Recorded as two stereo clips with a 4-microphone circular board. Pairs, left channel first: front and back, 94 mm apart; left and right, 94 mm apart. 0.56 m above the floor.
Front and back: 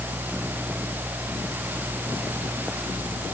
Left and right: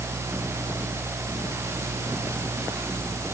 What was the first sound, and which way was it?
Only background noise.